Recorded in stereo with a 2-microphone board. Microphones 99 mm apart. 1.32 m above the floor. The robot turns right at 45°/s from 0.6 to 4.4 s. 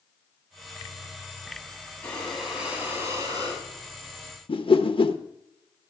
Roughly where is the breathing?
Behind.